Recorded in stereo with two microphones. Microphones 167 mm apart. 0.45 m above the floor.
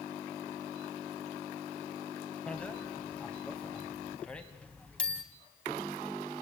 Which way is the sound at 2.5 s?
5° left (ahead or behind).